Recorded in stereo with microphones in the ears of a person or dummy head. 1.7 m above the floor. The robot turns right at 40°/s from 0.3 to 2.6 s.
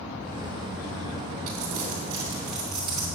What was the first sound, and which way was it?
Crumpling, 50° right (ahead or behind).